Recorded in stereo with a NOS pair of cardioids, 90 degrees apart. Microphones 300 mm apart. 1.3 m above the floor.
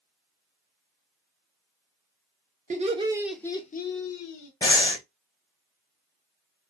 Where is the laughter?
25° right, 1.2 m; by 4.5 s 80° left, 1.0 m.